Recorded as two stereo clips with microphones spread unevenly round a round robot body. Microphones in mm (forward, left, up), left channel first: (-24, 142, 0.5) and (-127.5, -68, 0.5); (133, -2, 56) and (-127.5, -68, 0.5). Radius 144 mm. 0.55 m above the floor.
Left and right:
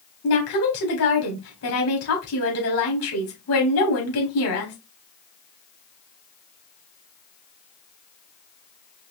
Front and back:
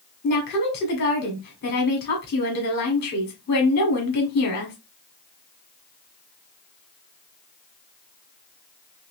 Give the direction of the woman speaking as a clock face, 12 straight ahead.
10 o'clock.